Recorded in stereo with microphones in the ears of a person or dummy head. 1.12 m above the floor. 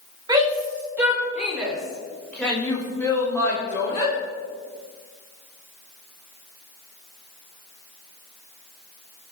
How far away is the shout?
About 2.5 m.